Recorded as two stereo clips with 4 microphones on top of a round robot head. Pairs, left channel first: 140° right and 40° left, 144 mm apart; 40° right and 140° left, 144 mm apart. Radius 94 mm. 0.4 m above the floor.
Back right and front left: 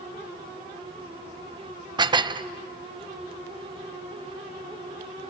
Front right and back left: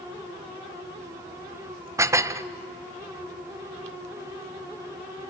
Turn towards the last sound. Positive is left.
turn(degrees=80)